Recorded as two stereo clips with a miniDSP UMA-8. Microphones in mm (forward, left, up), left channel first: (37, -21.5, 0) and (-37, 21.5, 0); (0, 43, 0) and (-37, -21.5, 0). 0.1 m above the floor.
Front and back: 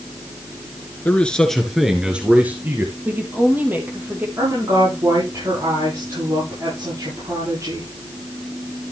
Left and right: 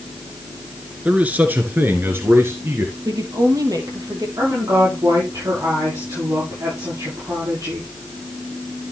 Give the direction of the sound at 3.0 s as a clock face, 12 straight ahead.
5 o'clock.